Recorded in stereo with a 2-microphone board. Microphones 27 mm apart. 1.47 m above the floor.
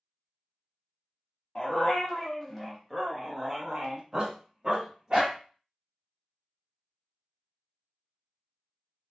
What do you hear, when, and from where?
1.6 s a dog barking: 25° left (ahead or behind), 1.1 m; by 5.4 s 30° right (ahead or behind), 1.6 m